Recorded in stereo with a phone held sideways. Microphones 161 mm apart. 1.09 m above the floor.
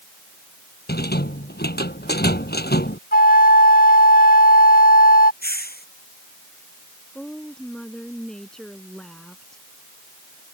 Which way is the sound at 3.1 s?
70° left (ahead or behind).